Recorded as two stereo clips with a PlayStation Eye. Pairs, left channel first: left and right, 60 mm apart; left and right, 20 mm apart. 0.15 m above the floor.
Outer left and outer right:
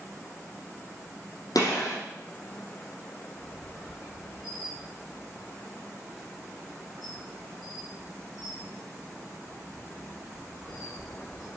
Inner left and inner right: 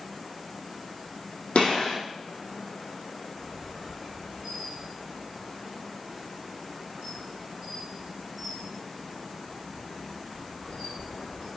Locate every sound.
1.6 s a gunshot: 80° left, 4.5 m
3.4 s a squeak: 20° right (ahead or behind), 5.5 m